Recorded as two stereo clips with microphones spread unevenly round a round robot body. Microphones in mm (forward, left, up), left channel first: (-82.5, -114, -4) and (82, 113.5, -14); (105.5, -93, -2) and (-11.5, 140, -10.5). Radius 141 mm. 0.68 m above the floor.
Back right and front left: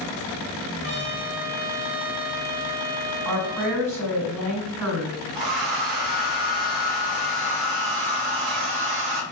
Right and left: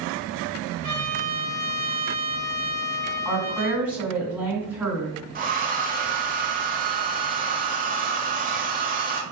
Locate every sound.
0.8 s a trumpet: 65° left, 1.8 m
3.2 s a woman speaking: 35° left, 2.5 m
5.3 s a hair dryer: 55° left, 1.0 m